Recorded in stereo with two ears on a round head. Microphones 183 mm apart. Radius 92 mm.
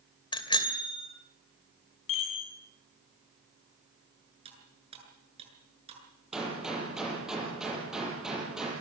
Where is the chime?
70° left (ahead or behind), 7 m.